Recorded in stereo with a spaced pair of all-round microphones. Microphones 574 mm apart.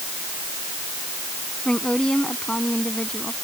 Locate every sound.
1.6 s a woman speaking: centre (ahead or behind)